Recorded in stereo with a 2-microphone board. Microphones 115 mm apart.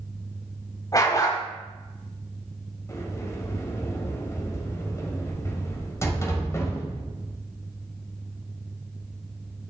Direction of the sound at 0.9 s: 30° left (ahead or behind).